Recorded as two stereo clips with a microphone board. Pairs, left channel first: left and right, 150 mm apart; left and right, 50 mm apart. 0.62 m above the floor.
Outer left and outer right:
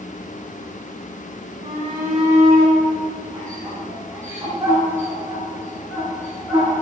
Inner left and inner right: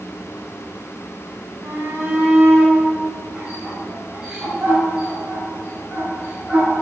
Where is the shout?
55° right (ahead or behind), 1.6 m; by 6.8 s 10° right (ahead or behind), 7 m.